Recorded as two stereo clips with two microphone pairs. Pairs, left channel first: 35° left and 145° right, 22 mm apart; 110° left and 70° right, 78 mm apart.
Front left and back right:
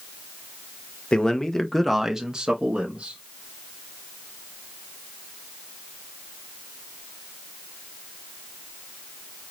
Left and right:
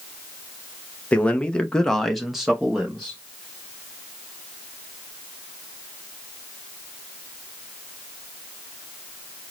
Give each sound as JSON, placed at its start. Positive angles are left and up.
{"t": 1.1, "sound": "a man speaking", "azimuth_deg": 45, "distance_m": 0.7}